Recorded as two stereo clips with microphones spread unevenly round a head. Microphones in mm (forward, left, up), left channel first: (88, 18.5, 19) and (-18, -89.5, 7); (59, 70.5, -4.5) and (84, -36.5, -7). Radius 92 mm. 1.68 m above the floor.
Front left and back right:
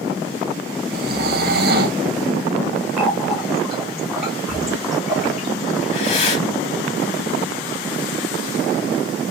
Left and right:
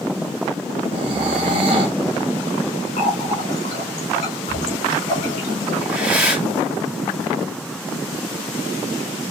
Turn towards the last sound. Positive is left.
turn(degrees=0)